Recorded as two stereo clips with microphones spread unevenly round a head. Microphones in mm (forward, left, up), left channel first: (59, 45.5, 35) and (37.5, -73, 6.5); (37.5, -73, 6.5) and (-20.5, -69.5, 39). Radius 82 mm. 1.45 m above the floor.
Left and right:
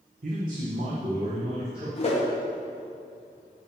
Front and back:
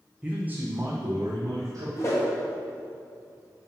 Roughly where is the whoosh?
Ahead left.